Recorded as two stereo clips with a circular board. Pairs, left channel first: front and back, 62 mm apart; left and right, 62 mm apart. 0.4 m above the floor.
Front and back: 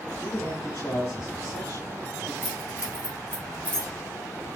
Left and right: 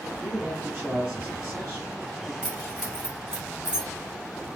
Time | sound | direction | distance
0.2 | a man speaking | 20° right | 3 m
2.4 | keys jangling | 15° right | 3.5 m